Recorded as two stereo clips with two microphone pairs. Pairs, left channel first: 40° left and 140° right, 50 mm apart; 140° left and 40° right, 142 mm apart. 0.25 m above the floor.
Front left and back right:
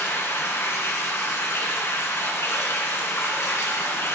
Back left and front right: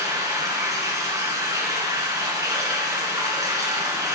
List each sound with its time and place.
0.0 s running water: 25° left, 2 m